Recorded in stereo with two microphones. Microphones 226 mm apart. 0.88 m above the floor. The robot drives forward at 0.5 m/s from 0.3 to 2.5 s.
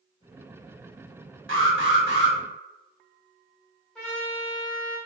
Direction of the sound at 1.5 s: 70° right (ahead or behind).